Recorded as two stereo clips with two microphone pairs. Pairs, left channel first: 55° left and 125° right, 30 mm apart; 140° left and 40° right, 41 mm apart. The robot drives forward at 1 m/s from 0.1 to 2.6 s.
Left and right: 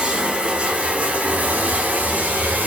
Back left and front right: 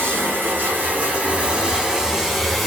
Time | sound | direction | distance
0.0 | running water | 65° right | 2.5 m